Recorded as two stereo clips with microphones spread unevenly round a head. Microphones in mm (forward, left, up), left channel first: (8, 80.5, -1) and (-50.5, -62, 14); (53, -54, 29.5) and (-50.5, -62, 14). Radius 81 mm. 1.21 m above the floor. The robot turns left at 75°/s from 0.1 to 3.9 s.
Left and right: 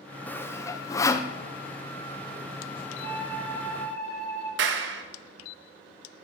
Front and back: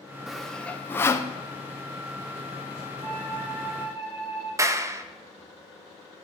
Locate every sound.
0.3 s sawing: 120° left, 0.6 m; by 1.3 s 40° left, 0.6 m
3.0 s a flute: 135° left, 4 m; by 4.5 s 65° left, 4 m
4.6 s a clap: 115° right, 0.9 m